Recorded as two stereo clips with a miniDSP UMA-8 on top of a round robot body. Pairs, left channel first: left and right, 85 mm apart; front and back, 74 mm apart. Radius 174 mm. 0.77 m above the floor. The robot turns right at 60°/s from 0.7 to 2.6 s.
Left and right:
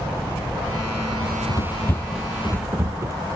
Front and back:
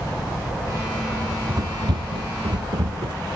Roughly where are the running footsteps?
Left.